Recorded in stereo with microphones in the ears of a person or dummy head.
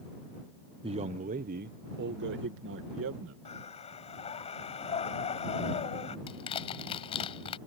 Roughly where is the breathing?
Left.